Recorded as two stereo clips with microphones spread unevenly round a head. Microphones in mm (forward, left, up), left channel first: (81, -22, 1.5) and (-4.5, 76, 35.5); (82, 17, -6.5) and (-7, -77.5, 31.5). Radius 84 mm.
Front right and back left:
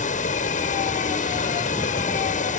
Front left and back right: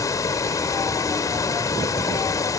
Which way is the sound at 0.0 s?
20° right.